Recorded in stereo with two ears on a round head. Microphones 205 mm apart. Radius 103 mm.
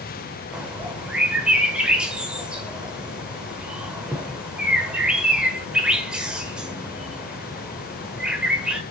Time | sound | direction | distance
0.5 | a bird | 5° right (ahead or behind) | 1.1 m